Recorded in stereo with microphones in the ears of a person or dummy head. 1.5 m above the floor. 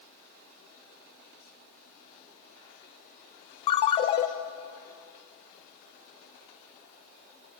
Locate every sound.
3.7 s a ringtone: 35° left (ahead or behind), 0.9 m